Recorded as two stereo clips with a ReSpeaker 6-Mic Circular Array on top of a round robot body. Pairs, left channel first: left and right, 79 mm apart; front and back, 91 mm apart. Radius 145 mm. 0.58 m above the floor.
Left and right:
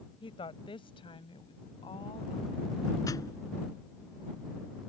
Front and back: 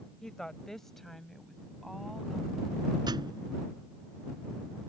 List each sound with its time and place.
0.2 s a woman speaking: 85° left; by 3.0 s 90° left
3.1 s a thud: 135° left